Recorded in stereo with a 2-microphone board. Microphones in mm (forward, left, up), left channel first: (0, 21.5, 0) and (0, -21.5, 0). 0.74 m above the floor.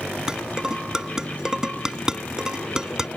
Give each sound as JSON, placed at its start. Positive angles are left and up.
{"t": 0.3, "sound": "dishes clattering", "side_deg": -15}